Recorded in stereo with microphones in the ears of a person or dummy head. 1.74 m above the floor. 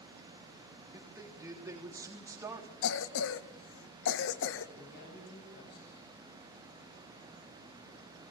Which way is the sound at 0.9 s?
25° right (ahead or behind).